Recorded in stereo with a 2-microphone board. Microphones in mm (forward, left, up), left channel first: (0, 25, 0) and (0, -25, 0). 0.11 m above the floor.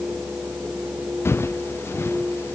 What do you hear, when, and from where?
1.2 s footsteps: 60° left (ahead or behind)